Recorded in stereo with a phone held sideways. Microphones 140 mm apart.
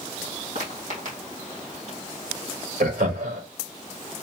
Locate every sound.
0.6 s footsteps: 70° right (ahead or behind), 3 m; by 2.0 s 55° right (ahead or behind), 2 m
2.8 s laughter: 75° right (ahead or behind), 1.6 m